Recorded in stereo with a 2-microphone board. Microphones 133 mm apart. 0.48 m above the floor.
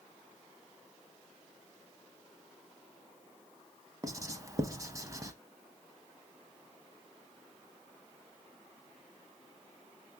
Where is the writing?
25° right (ahead or behind), 0.5 m.